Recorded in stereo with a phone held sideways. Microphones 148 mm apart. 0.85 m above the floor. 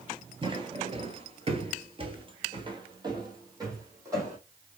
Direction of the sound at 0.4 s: 35° right (ahead or behind).